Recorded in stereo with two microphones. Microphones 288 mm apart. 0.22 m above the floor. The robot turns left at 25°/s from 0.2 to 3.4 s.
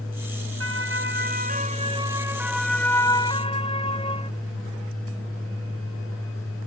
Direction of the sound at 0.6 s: 50° right (ahead or behind).